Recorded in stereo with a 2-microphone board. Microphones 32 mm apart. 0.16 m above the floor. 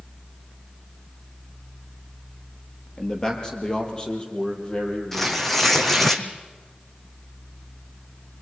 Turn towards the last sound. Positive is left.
turn(degrees=10)  # may be behind; listen again after turning